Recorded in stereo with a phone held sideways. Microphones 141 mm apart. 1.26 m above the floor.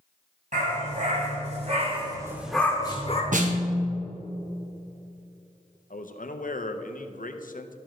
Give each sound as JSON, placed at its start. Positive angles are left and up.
{"t": 0.5, "sound": "a dog barking", "side_deg": -65, "distance_m": 3.0}
{"t": 3.3, "sound": "a snare drum", "side_deg": -65, "distance_m": 1.0}
{"t": 5.9, "sound": "a man speaking", "side_deg": 75, "distance_m": 0.6}